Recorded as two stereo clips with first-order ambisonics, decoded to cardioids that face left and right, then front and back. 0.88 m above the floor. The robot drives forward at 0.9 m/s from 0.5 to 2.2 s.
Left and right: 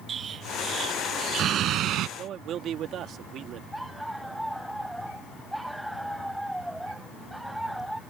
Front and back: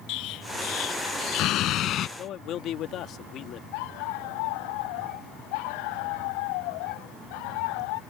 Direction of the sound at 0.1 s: 30° right.